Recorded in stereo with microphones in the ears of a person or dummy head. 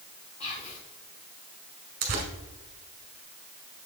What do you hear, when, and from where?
0.4 s whispering: 35° left (ahead or behind), 0.8 m
2.0 s tearing paper: 45° right (ahead or behind), 1.5 m